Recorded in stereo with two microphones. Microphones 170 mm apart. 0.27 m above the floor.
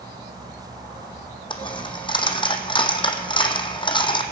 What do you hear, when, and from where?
1.5 s a dropped coin: 30° left (ahead or behind), 0.9 m